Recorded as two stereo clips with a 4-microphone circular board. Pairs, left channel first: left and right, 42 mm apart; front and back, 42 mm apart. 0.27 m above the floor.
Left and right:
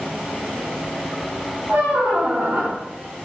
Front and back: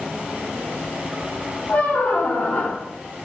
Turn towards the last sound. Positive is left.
turn(degrees=-35)